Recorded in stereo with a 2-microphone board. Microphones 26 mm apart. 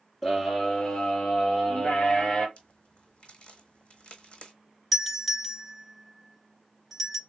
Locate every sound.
0.2 s a scream: 15° left (ahead or behind), 1.6 m; by 2.5 s 45° left (ahead or behind), 3 m
2.6 s a crack: 55° left (ahead or behind), 1.3 m
4.9 s a doorbell: centre (ahead or behind), 1.7 m